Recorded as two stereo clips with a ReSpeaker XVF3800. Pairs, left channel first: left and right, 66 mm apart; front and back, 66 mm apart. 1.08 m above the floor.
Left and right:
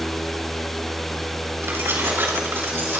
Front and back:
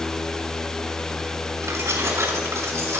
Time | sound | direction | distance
1.6 | keys jangling | 145° right | 6 m